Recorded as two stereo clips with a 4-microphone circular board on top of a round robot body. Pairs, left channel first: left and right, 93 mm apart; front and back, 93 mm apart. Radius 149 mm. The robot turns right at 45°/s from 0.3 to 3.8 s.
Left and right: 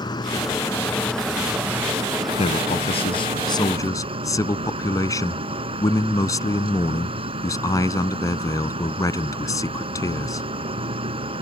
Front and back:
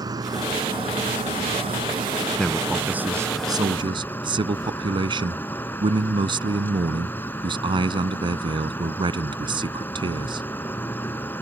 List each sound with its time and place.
0.0 s an insect: 135° left; by 11.4 s 70° right
2.4 s a man speaking: 80° left; by 10.5 s 145° left